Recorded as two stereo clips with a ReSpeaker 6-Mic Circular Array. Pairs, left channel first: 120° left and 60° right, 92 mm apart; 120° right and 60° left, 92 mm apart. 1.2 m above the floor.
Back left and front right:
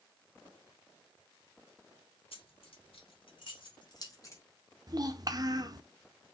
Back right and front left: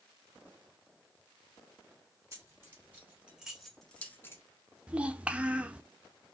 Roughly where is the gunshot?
No gunshot in this recording.